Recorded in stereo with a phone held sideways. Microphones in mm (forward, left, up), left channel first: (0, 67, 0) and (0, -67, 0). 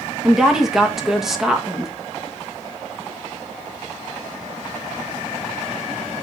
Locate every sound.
0.2 s a woman speaking: 5° right (ahead or behind), 1.3 m